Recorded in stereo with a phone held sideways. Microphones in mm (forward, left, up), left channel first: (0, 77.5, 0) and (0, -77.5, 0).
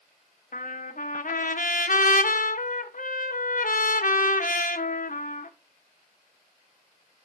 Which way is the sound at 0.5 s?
60° left (ahead or behind).